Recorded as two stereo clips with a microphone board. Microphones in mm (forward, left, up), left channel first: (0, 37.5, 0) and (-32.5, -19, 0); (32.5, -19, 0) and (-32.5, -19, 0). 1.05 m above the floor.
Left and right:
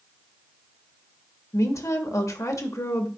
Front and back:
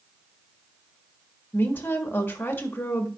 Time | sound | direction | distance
1.5 | a woman speaking | 50° left | 1.2 m